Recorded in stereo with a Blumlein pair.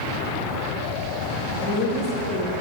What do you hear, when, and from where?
1.6 s a woman speaking: 30° left, 3 m; by 2.6 s 20° left, 1.9 m